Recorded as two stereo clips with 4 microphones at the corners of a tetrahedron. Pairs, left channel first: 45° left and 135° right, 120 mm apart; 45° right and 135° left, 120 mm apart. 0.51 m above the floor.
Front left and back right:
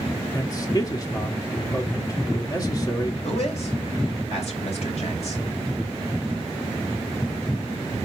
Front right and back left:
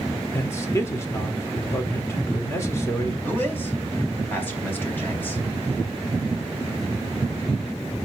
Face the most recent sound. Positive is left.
turn(degrees=25)